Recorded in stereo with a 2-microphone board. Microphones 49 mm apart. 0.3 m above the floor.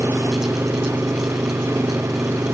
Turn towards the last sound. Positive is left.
turn(degrees=-85)